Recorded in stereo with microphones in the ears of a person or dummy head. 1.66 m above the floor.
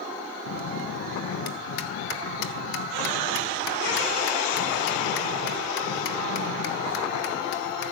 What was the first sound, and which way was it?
A bell, 65° left (ahead or behind).